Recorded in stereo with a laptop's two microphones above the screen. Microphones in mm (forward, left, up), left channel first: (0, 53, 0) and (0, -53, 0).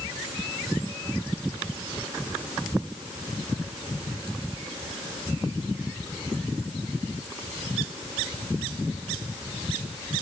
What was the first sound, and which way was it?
Only background noise.